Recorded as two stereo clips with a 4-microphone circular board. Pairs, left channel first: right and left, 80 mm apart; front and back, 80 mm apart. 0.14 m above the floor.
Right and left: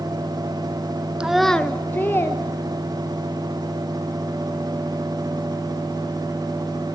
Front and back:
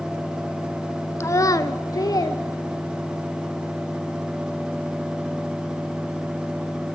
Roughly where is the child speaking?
Ahead.